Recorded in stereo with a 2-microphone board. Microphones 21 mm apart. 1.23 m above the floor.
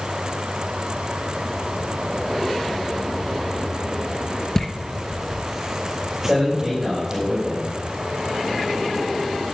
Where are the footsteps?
25° left (ahead or behind), 1.4 m; by 7.2 s 25° right (ahead or behind), 3.5 m.